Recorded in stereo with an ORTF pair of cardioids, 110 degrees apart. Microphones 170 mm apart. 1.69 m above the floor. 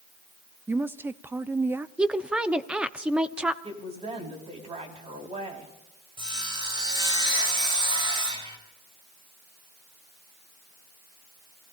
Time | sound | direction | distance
0.7 | a woman speaking | 10° right | 0.7 m
2.0 | a woman speaking | 5° right | 1.0 m
3.6 | a woman speaking | 35° right | 4.5 m
6.2 | sawing | 30° right | 4.5 m